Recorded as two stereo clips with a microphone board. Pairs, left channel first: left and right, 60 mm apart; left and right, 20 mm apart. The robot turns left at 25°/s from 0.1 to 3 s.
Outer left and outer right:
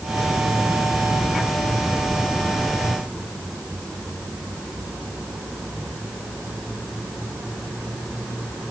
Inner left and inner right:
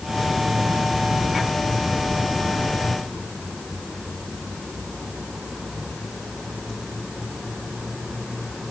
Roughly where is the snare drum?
No snare drum in this recording.